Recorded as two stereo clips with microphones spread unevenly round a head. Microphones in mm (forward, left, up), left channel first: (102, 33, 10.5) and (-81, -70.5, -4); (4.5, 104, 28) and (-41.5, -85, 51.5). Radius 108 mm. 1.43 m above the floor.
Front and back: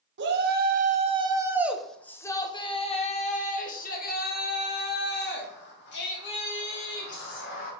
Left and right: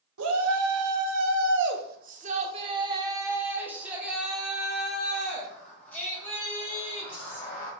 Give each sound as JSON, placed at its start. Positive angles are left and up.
{"t": 0.2, "sound": "a shout", "azimuth_deg": -115, "distance_m": 1.1}